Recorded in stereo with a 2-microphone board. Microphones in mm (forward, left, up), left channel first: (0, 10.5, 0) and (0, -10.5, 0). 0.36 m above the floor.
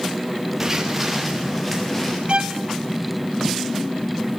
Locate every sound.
0.6 s footsteps: 15° right (ahead or behind), 3 m; by 2.2 s 15° left (ahead or behind), 4.5 m
2.3 s a violin: 50° right (ahead or behind), 0.5 m